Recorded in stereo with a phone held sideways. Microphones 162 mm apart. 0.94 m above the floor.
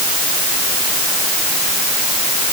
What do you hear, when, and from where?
Only background noise.